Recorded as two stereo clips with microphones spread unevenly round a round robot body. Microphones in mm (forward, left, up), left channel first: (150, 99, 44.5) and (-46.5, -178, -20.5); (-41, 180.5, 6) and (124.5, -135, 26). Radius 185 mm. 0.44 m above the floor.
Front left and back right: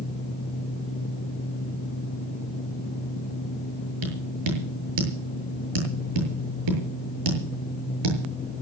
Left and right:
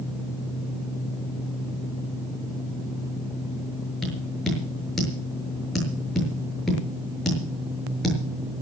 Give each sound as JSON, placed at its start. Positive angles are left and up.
{"t": 4.0, "sound": "tapping", "azimuth_deg": -155, "distance_m": 7.0}